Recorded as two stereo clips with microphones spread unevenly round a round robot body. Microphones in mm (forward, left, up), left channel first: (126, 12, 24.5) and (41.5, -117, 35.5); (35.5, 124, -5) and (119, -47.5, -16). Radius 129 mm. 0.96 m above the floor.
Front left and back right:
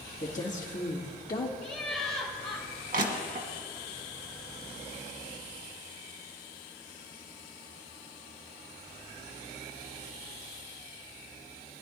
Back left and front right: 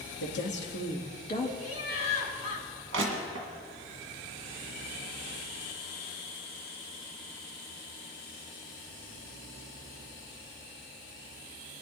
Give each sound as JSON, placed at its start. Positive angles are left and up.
{"t": 0.2, "sound": "a woman speaking", "azimuth_deg": 100, "distance_m": 1.8}
{"t": 1.6, "sound": "laughter", "azimuth_deg": 130, "distance_m": 3.5}
{"t": 2.9, "sound": "crushing", "azimuth_deg": -100, "distance_m": 1.6}